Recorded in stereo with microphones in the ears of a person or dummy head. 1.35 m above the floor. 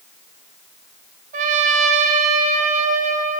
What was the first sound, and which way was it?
A trumpet, 40° right (ahead or behind).